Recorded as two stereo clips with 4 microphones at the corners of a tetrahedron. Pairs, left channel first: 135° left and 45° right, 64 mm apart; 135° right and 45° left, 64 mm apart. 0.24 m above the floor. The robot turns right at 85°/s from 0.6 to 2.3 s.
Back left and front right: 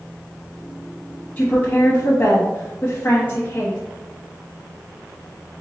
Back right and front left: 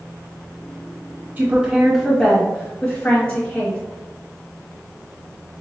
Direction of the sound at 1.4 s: 80° left.